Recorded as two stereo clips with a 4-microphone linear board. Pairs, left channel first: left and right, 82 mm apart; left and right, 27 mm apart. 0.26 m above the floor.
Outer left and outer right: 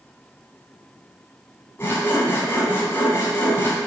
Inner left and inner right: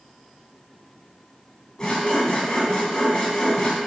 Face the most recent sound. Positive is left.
turn(degrees=30)  # may be behind; listen again after turning